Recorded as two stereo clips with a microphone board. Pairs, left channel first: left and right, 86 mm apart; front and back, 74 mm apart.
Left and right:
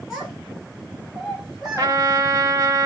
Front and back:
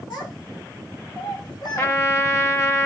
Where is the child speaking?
5° right, 3.5 m.